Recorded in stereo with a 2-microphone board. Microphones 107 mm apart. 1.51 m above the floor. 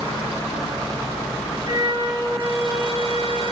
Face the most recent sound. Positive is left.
turn(degrees=-45)  # may be behind; listen again after turning